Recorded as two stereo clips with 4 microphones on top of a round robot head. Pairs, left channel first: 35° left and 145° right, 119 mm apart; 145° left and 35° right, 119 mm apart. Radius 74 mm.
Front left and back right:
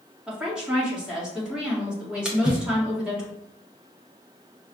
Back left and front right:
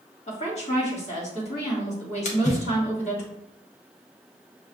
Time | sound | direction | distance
0.3 | a woman speaking | 130° left | 1.8 m
2.2 | a splash | 130° left | 1.0 m